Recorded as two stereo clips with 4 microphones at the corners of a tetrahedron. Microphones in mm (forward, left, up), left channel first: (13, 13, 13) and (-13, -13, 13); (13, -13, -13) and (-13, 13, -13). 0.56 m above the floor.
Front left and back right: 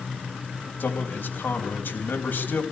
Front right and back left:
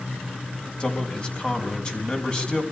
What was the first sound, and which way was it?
A man speaking, 15° left.